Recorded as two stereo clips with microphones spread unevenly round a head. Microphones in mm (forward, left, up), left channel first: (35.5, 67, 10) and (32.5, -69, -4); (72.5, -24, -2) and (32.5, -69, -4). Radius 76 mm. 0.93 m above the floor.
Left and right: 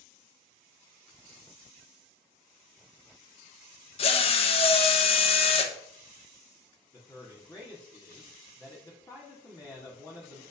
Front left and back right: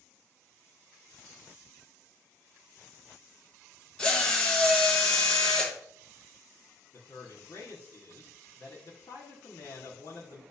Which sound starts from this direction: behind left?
A drill, at 4.0 s.